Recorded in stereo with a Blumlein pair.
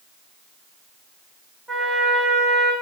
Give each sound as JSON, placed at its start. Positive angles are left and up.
{"t": 1.7, "sound": "a trumpet", "azimuth_deg": -10, "distance_m": 0.9}